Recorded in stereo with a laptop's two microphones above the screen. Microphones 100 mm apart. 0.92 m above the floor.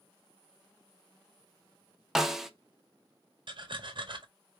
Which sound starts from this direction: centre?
A snare drum, at 2.1 s.